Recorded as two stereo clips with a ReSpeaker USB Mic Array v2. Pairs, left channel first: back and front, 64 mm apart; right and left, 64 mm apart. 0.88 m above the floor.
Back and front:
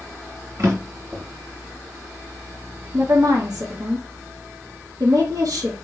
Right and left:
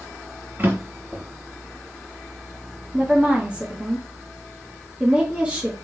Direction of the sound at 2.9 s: 20° left.